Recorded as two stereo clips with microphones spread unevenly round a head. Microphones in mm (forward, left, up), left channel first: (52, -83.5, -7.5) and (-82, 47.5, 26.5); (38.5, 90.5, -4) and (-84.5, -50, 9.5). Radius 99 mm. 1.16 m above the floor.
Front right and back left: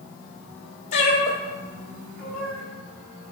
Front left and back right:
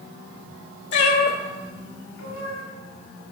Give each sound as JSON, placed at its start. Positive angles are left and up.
{"t": 0.9, "sound": "a cat meowing", "azimuth_deg": 15, "distance_m": 1.3}